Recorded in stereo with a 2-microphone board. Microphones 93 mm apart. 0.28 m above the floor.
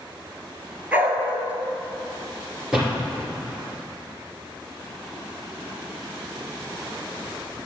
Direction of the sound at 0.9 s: 20° right (ahead or behind).